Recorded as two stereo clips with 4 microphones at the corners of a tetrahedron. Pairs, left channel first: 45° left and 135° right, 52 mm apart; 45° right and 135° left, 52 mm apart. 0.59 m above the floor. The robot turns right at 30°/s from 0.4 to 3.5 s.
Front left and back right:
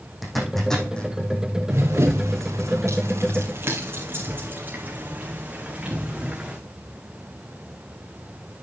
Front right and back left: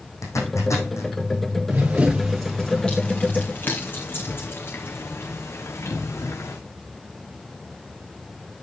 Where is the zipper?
45° right, 5 m; by 1.1 s 25° right, 5 m.